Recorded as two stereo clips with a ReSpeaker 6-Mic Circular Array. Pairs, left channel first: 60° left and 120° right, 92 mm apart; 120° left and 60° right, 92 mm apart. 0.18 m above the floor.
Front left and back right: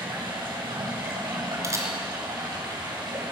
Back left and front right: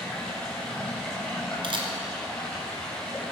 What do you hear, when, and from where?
0.0 s running water: 160° right, 4.5 m
1.6 s a camera shutter: 65° right, 2.0 m